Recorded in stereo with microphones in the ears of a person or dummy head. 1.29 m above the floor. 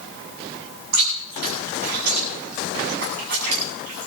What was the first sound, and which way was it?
Chewing, 65° right (ahead or behind).